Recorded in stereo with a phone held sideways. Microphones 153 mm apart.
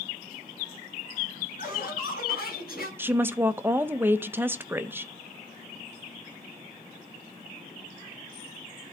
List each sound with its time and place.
1.6 s laughter: 55° left (ahead or behind), 5 m; by 2.9 s 70° left (ahead or behind), 6 m
3.0 s a woman speaking: 15° right (ahead or behind), 0.6 m